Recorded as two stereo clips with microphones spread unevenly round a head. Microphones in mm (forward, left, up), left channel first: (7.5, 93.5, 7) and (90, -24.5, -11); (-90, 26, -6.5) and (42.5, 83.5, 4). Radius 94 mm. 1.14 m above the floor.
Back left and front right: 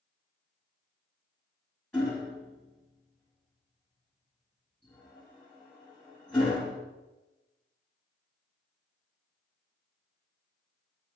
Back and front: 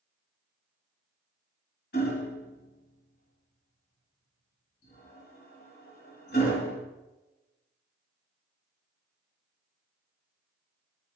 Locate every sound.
1.9 s hammering: 155° right, 2.5 m